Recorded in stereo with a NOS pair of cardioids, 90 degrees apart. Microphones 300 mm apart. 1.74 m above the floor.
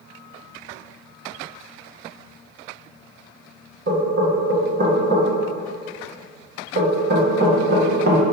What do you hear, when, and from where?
3.9 s knocking: 35° right, 1.8 m